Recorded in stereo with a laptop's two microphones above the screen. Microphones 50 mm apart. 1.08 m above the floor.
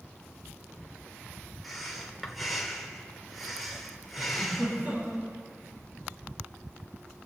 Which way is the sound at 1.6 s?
Centre (ahead or behind).